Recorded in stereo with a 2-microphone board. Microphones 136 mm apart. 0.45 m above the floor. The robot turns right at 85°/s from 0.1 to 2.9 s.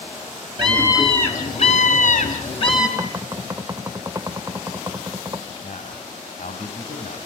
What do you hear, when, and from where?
0.6 s a scream: 40° right, 4 m; by 2.9 s 155° left, 4 m
3.0 s knocking: 25° right (ahead or behind), 0.7 m
5.6 s a man speaking: 65° left (ahead or behind), 3 m